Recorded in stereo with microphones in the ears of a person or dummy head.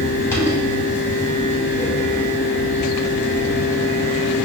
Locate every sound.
0.0 s a fan: 15° left (ahead or behind), 1.0 m